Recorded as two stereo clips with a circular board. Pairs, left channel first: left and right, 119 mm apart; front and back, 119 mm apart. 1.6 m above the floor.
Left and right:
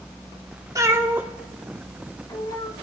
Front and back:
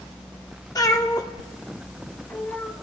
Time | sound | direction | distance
0.8 | a cat meowing | 45° right | 1.5 m